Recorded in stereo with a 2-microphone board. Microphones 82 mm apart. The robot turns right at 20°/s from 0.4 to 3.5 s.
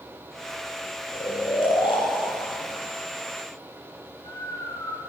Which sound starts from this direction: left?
Snoring, at 1.1 s.